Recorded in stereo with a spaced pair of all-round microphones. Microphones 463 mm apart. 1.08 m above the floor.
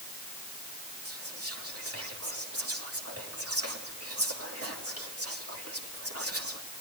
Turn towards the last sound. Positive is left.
turn(degrees=-30)  # may be behind; listen again after turning